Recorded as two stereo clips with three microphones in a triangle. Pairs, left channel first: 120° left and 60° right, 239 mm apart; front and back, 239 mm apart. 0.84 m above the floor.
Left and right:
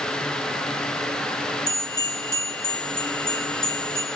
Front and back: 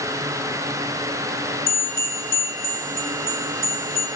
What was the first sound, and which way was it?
A bell, 45° left.